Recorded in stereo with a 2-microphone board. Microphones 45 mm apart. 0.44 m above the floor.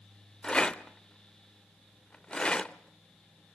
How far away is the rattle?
About 0.7 m.